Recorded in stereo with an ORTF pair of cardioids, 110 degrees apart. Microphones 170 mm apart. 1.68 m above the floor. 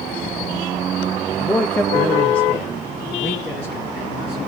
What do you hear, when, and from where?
1.4 s a man speaking: 5° left, 0.6 m; by 4.4 s 10° left, 2.5 m